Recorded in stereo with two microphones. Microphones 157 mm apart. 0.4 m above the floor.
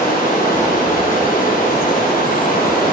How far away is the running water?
About 9 m.